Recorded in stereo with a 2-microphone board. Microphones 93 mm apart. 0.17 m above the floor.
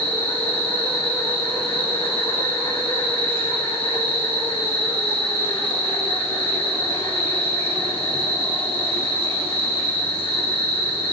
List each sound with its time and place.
0.0 s an insect: 80° left, 7 m